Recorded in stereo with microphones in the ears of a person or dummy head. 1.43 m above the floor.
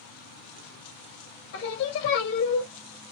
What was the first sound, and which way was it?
Singing, 75° left (ahead or behind).